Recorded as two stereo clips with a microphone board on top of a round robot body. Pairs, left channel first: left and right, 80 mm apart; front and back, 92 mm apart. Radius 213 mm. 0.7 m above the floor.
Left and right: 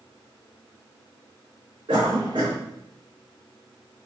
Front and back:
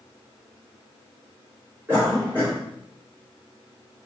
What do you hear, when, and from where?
1.9 s a cough: 110° right, 2.5 m